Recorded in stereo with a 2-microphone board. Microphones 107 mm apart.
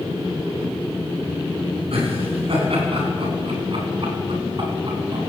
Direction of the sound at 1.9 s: 60° right (ahead or behind).